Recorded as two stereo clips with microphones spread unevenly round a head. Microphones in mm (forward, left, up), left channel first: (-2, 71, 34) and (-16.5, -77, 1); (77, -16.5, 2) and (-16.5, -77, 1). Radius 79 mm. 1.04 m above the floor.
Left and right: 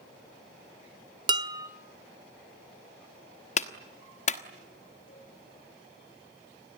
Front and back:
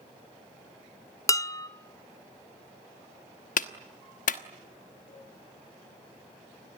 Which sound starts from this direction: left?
A cowbell, at 5.1 s.